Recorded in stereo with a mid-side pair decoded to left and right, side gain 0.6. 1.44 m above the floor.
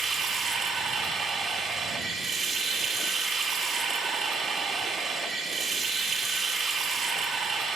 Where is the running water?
45° right, 2.5 m.